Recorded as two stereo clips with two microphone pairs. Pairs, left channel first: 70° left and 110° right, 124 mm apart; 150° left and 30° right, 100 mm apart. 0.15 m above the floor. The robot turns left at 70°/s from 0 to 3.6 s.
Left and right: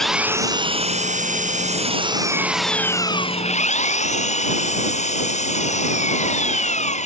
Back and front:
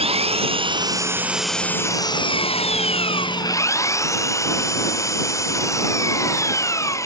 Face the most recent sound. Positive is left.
turn(degrees=90)